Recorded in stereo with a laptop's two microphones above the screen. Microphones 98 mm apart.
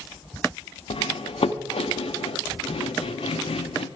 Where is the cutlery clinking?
75° left (ahead or behind), 0.8 m.